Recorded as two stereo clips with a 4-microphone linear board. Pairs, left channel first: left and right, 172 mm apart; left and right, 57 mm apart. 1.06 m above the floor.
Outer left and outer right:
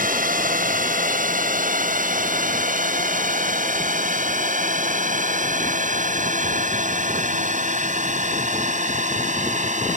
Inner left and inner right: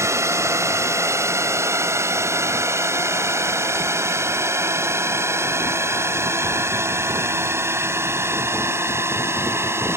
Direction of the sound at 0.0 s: 55° right (ahead or behind).